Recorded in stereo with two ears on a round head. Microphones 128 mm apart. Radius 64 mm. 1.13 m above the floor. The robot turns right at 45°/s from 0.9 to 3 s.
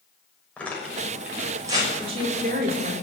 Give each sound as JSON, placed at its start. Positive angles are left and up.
{"t": 0.6, "sound": "tearing paper", "side_deg": 10, "distance_m": 6.0}
{"t": 2.0, "sound": "a woman speaking", "azimuth_deg": -140, "distance_m": 3.0}